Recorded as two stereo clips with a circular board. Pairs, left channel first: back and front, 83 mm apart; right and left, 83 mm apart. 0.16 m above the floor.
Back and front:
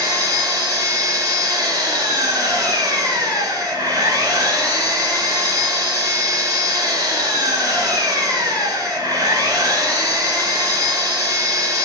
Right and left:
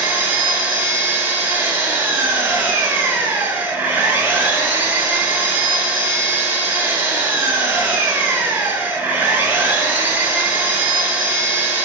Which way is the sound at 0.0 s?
25° left.